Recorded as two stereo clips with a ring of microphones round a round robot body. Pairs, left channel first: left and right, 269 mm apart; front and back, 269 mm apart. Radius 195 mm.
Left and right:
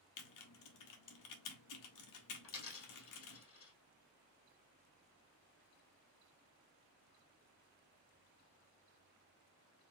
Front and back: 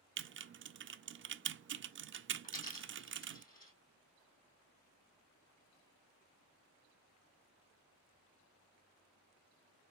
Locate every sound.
0.2 s typing on a keyboard: 125° left, 0.5 m
2.4 s a dropped coin: 60° left, 3 m